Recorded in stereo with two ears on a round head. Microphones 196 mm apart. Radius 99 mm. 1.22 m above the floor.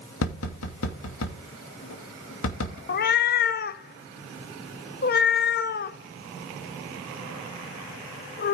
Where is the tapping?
70° left (ahead or behind), 2.5 m.